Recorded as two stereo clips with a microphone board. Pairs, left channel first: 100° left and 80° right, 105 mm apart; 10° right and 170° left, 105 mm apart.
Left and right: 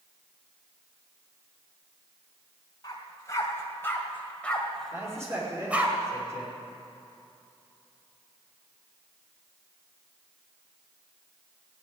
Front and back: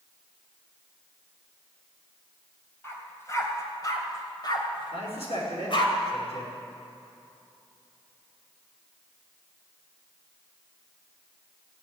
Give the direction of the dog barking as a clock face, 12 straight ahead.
10 o'clock.